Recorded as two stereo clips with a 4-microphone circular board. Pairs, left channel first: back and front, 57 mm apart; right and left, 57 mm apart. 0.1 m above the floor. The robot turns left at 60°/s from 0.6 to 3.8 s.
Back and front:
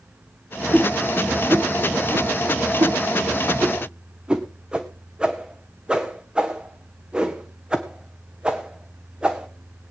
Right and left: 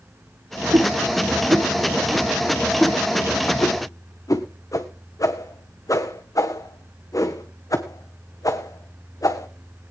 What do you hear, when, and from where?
0.7 s a whoosh: 115° left, 1.6 m; by 9.5 s 75° right, 1.6 m